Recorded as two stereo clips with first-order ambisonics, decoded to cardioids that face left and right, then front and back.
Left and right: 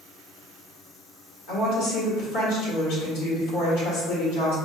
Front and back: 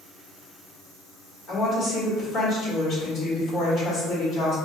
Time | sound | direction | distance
1.5 | a woman speaking | 65° left | 1.9 m